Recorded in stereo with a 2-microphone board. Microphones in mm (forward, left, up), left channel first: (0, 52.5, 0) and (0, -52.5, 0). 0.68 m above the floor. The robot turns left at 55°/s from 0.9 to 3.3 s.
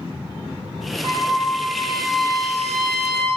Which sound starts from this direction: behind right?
A trumpet, at 1.0 s.